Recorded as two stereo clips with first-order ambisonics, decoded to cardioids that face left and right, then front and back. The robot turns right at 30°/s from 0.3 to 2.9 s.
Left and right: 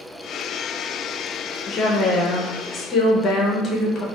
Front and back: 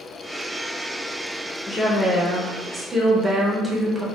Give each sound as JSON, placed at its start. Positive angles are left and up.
{"t": 1.7, "sound": "a woman speaking", "azimuth_deg": 70, "distance_m": 0.5}